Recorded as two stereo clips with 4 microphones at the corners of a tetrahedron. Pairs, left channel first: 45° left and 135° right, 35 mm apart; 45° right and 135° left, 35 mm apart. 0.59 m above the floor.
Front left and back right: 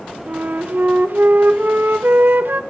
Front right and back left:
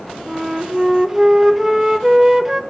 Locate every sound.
0.3 s a flute: 150° right, 0.9 m